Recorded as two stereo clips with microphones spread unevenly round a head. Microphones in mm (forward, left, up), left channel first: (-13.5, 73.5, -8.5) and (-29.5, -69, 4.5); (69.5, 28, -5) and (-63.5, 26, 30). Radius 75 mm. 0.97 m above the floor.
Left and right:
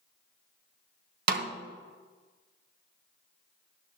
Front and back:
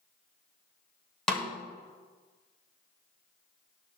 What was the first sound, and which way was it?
A snare drum, 95° right.